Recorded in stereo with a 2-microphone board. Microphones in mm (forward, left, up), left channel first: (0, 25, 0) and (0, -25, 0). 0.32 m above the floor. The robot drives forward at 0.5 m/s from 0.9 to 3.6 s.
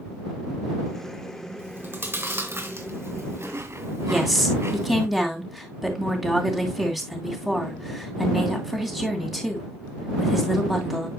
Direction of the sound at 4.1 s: 5° right (ahead or behind).